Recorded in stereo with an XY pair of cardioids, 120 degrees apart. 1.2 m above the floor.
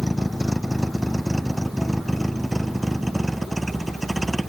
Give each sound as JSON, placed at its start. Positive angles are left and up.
{"t": 0.0, "sound": "a vehicle", "azimuth_deg": 5}